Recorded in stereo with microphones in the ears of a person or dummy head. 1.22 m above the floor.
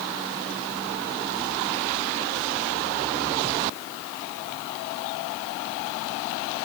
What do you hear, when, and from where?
Only background noise.